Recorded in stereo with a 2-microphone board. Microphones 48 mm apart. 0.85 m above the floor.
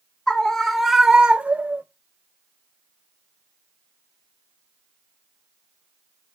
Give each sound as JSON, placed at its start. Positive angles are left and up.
{"t": 0.3, "sound": "a scream", "side_deg": 15, "distance_m": 1.4}